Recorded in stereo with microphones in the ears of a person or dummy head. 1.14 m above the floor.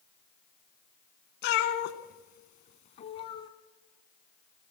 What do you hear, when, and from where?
1.4 s a cat meowing: 55° left (ahead or behind), 1.7 m; by 3.5 s 25° left (ahead or behind), 1.7 m